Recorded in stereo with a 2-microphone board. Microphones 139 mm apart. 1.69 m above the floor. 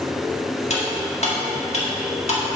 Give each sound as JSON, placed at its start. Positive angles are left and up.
{"t": 0.7, "sound": "cutlery clinking", "side_deg": 50, "distance_m": 1.8}